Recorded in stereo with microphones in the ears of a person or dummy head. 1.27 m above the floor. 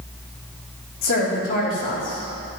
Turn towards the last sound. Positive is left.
turn(degrees=60)  # may be behind; listen again after turning